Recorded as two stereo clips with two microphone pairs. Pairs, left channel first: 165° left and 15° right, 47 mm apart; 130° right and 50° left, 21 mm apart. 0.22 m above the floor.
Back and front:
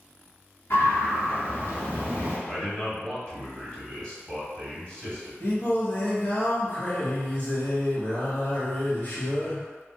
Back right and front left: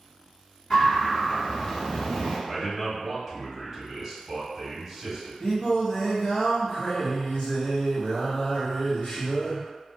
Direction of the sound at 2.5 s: 120° left.